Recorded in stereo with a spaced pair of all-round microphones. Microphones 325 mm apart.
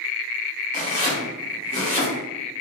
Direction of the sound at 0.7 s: 20° left (ahead or behind).